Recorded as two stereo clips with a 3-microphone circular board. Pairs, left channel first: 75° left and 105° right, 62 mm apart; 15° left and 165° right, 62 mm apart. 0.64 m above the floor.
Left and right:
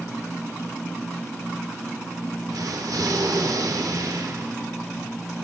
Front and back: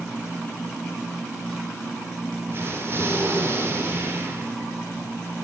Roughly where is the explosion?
Behind right.